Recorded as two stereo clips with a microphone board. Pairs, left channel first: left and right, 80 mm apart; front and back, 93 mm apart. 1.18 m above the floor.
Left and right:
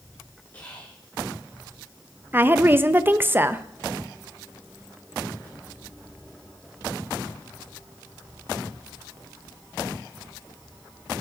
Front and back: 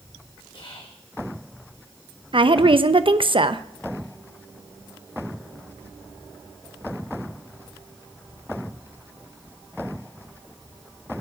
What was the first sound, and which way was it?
Whispering, 30° left.